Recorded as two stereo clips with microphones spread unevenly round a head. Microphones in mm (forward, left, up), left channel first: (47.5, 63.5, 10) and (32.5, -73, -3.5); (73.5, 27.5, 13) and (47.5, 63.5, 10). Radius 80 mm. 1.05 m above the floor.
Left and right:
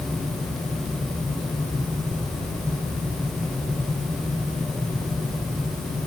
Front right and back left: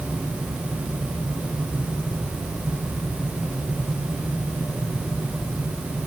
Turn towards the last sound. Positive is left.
No sound to turn to.